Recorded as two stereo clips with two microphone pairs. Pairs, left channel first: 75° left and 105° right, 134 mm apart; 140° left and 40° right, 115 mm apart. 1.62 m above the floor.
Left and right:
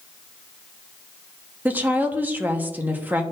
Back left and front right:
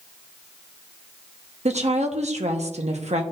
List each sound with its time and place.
1.6 s a woman speaking: 30° right, 1.1 m